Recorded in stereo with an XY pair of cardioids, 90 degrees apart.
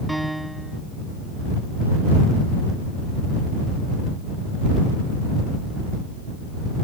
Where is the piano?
10° right.